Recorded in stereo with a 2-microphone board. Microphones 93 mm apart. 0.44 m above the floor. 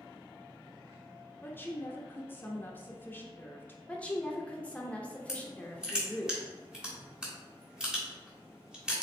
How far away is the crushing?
About 1.5 m.